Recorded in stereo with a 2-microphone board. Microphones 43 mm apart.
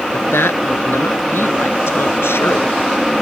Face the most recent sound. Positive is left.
turn(degrees=70)  # may be behind; listen again after turning